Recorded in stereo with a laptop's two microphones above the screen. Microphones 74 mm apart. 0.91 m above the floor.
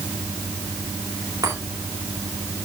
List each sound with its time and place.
1.4 s a chime: 55° right (ahead or behind), 5 m